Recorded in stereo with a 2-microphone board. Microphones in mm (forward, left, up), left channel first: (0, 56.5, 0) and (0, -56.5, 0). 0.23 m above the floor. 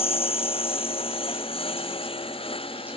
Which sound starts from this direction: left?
A lawn mower, at 0.0 s.